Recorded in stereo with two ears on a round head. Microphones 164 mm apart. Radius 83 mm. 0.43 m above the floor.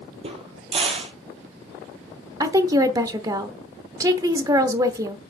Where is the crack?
35° right (ahead or behind), 1.7 m.